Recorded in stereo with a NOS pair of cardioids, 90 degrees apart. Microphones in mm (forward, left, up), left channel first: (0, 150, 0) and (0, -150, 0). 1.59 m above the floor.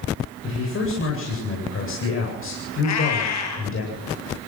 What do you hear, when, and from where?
0.4 s a man speaking: 45° left, 8.5 m
2.8 s a cat meowing: 70° left, 5 m